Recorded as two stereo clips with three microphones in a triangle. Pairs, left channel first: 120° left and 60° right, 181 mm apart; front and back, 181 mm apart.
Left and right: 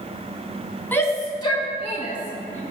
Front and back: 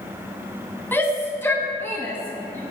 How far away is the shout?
About 1.1 m.